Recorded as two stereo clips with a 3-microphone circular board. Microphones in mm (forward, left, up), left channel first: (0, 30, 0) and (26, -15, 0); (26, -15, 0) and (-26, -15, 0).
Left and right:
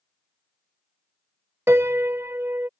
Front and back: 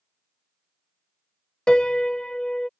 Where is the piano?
70° right.